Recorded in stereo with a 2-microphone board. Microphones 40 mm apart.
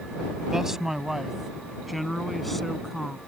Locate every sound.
0.5 s a man speaking: 10° right (ahead or behind); by 3.2 s 10° left (ahead or behind)